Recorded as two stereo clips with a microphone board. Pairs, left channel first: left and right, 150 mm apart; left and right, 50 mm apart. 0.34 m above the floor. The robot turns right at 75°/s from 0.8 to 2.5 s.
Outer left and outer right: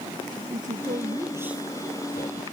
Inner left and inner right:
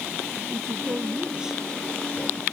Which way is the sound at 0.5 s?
60° right.